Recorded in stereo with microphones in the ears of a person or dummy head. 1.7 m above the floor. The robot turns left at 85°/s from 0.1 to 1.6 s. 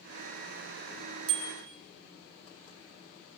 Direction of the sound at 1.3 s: 75° right (ahead or behind).